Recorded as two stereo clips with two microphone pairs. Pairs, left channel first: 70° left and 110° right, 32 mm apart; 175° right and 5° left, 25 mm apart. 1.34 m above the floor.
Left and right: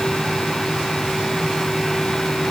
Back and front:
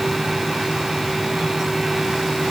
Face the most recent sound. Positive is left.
No sound to turn to.